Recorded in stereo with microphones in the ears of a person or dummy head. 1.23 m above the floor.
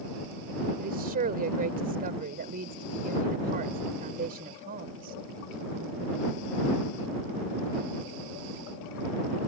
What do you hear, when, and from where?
0.8 s a woman speaking: 50° right (ahead or behind)